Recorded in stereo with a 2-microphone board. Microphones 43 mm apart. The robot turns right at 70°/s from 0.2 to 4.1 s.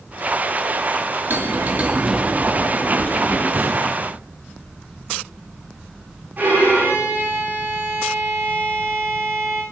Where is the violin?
45° right (ahead or behind), 9.5 m.